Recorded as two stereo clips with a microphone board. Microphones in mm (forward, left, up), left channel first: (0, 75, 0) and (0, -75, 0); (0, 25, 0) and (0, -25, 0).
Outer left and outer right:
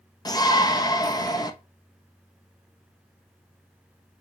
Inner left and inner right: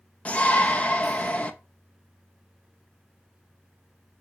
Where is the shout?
25° left (ahead or behind), 0.7 m.